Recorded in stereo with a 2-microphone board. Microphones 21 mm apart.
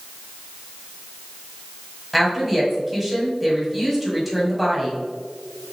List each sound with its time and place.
2.1 s a woman speaking: 5° right (ahead or behind), 1.7 m